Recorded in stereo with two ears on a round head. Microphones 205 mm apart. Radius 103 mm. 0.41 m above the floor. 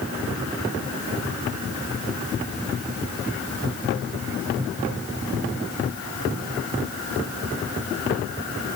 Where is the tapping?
I don't hear tapping.